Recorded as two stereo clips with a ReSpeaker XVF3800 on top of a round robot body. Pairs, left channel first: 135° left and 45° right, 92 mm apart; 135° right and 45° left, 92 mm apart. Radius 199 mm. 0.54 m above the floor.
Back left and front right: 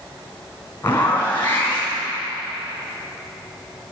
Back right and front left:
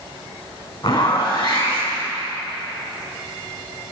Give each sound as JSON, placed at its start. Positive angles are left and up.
{"t": 0.8, "sound": "a zipper", "azimuth_deg": -160, "distance_m": 3.5}